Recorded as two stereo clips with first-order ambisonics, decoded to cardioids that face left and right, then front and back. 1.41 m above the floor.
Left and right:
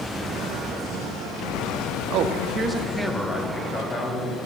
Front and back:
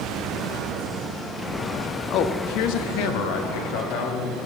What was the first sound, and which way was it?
A man speaking, 50° right.